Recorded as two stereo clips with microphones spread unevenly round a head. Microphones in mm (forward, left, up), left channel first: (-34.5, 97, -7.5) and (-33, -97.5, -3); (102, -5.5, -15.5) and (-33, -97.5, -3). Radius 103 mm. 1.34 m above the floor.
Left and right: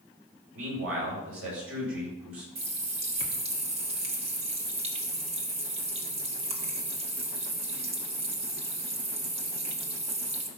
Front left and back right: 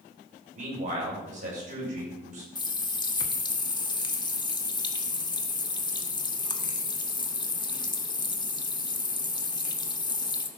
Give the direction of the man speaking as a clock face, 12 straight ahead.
4 o'clock.